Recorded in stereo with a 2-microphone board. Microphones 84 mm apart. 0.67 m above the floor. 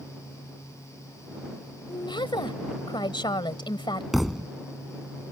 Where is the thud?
Centre (ahead or behind).